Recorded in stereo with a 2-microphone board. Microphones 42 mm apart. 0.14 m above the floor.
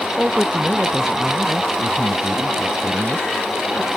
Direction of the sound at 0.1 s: 15° right (ahead or behind).